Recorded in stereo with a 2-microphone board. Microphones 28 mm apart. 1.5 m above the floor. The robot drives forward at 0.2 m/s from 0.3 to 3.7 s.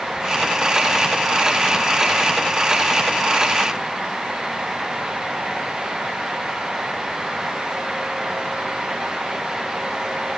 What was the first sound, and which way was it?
Only background noise.